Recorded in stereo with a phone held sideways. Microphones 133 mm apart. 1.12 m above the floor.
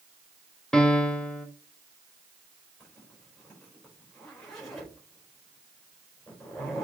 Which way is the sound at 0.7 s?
5° left (ahead or behind).